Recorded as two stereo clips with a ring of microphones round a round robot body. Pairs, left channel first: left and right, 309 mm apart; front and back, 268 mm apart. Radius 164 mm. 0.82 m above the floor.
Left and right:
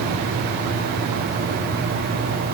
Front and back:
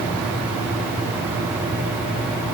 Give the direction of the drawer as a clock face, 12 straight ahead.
No drawer in this recording.